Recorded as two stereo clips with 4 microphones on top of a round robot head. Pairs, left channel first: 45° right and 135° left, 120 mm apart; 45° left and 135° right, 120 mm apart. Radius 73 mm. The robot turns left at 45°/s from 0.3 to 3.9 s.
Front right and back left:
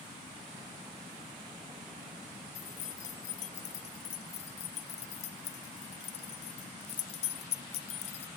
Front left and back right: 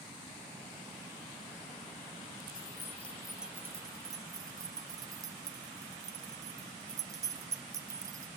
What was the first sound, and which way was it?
Keys jangling, 15° right.